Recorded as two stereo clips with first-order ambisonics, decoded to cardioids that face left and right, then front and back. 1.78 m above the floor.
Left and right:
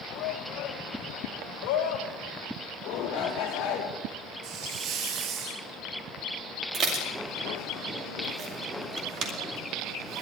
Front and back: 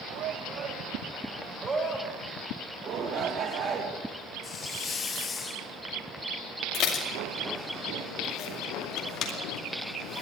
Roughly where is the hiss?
Ahead right.